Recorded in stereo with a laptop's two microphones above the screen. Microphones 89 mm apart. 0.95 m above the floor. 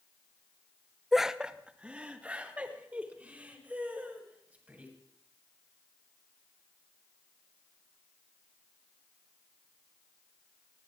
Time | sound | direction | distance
1.1 | laughter | centre (ahead or behind) | 0.5 m